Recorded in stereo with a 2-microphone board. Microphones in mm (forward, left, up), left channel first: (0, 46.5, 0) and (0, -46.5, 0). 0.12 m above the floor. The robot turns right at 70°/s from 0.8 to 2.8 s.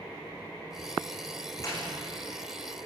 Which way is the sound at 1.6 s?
40° left (ahead or behind).